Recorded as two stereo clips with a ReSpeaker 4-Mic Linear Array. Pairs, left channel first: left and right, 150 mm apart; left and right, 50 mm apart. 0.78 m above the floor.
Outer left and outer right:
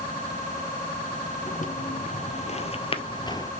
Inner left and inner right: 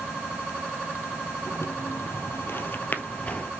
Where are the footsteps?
65° left (ahead or behind), 1.6 m; by 3.5 s 25° left (ahead or behind), 1.1 m.